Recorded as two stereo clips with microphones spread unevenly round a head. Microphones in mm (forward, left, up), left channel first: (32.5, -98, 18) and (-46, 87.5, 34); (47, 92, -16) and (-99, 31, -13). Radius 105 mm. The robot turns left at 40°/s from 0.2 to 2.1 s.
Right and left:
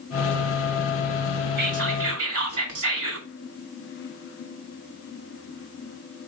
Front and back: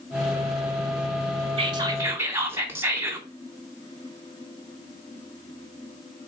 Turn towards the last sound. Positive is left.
turn(degrees=130)